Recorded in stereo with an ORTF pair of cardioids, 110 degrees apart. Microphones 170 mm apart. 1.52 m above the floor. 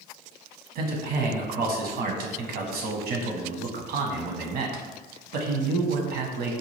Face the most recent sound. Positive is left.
turn(degrees=-65)